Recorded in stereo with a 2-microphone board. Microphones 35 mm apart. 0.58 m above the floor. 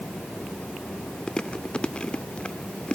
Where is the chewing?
25° left (ahead or behind), 0.9 m.